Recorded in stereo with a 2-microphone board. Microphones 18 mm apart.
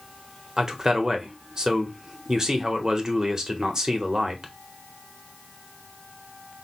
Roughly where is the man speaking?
Right.